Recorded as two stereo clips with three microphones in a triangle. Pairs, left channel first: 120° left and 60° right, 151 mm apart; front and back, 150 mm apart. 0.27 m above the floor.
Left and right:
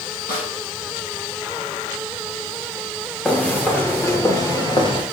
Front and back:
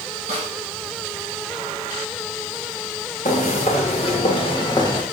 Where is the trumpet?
No trumpet in this recording.